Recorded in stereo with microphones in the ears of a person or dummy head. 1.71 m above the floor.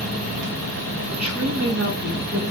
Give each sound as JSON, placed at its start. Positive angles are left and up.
{"t": 1.1, "sound": "a woman speaking", "side_deg": -10, "distance_m": 7.5}